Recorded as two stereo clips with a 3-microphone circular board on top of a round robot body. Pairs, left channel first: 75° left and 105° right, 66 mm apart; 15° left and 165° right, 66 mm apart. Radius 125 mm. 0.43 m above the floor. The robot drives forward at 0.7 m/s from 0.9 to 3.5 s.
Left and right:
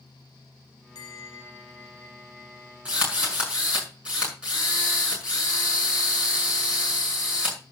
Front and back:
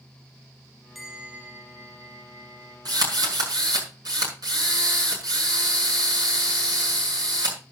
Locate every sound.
0.9 s a bell: 105° left, 0.5 m; by 2.8 s 160° left, 1.5 m
2.9 s a drill: straight behind, 6 m